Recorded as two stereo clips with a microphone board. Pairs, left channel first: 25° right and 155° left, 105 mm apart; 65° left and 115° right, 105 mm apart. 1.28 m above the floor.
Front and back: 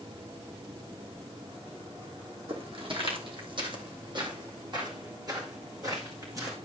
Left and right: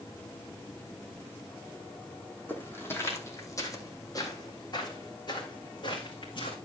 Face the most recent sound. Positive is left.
turn(degrees=100)